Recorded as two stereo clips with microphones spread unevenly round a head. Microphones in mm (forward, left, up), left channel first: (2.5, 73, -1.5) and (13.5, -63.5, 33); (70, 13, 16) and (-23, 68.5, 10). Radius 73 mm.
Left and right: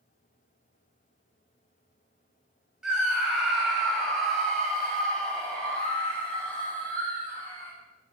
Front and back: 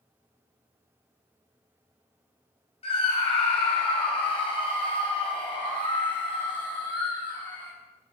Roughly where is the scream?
Ahead.